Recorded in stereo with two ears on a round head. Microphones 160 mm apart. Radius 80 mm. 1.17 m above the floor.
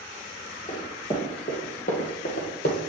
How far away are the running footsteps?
About 3 m.